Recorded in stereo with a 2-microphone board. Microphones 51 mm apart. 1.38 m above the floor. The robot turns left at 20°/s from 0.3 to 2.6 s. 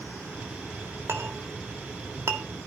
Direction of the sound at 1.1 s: 55° right (ahead or behind).